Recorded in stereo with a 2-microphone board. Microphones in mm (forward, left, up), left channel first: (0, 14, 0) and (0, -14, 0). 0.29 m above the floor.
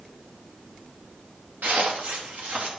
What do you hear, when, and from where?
1.6 s footsteps: 85° right, 2.5 m